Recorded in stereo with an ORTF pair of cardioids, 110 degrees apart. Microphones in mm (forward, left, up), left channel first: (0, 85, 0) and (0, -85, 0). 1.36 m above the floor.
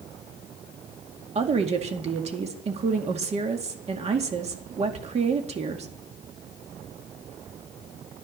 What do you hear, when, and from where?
1.4 s a woman speaking: 40° right, 2 m